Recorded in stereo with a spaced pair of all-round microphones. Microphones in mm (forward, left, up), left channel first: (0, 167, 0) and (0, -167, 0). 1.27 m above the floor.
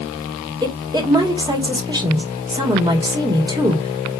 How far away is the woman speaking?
About 1.4 m.